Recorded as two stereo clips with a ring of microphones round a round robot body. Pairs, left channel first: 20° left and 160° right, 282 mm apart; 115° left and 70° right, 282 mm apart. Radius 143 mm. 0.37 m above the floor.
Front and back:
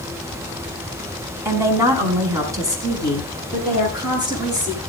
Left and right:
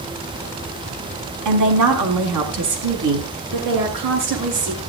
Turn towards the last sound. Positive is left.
turn(degrees=-80)